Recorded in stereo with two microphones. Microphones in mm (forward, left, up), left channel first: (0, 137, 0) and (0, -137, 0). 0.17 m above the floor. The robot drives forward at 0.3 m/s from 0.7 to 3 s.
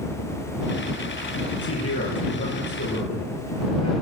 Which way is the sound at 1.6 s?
60° left (ahead or behind).